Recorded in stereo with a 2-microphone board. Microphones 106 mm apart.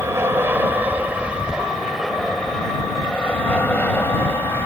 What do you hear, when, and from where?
0.0 s an aircraft: 25° right (ahead or behind); by 4.7 s 20° left (ahead or behind)